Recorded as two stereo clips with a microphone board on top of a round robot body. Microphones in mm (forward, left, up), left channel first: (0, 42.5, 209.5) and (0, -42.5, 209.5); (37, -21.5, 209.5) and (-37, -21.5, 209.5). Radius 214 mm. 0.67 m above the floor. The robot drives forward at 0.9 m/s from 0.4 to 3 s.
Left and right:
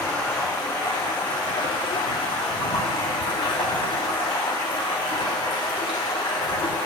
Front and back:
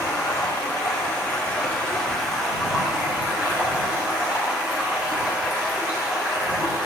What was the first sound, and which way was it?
Running water, 45° left.